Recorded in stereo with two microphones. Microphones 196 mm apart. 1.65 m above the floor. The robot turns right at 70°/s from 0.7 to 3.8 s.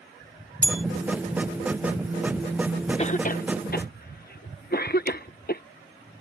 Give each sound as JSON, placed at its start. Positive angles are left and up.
{"t": 0.6, "sound": "a bell", "side_deg": -40}
{"t": 3.0, "sound": "a cough", "side_deg": 30}